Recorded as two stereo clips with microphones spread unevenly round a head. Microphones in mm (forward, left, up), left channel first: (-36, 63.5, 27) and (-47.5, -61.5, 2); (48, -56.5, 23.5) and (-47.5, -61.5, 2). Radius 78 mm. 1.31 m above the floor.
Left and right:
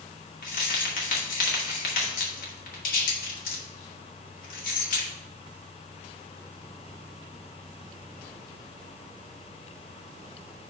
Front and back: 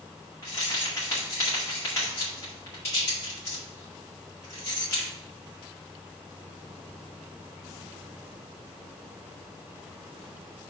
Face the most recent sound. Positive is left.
turn(degrees=75)